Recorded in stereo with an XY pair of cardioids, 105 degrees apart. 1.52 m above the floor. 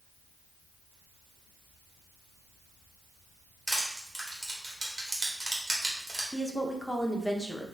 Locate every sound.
3.7 s crushing: 20° right, 1.5 m
6.3 s a woman speaking: 5° left, 0.8 m